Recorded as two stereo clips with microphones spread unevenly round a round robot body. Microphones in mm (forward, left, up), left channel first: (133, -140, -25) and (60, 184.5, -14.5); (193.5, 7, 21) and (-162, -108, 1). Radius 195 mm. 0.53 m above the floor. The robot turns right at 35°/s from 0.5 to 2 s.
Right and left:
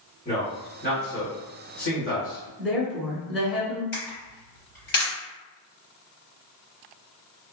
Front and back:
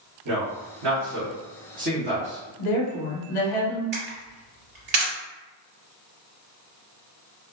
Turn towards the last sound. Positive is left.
turn(degrees=-120)